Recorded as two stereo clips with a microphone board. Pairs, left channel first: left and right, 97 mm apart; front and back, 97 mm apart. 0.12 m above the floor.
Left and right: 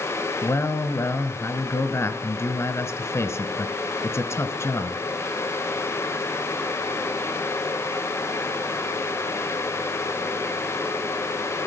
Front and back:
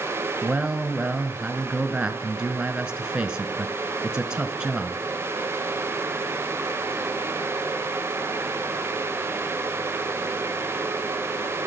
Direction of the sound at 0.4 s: 110° left.